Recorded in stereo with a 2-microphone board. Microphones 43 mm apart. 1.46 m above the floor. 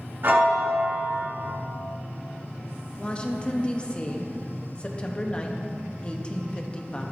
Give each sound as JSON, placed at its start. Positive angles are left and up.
{"t": 0.2, "sound": "a piano", "side_deg": -60, "distance_m": 1.9}
{"t": 3.0, "sound": "a woman speaking", "side_deg": 25, "distance_m": 0.9}